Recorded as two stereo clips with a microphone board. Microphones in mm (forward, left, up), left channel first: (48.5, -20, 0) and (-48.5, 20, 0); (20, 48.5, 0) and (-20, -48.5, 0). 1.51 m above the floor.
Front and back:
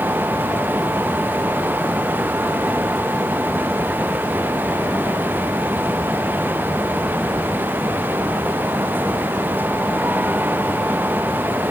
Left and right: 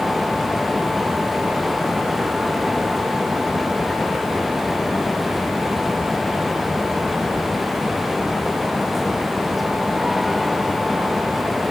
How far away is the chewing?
No chewing in this recording.